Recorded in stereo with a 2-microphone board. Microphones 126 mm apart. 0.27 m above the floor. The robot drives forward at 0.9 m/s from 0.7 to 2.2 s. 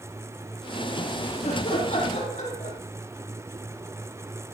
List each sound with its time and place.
1.4 s laughter: 60° left (ahead or behind), 9 m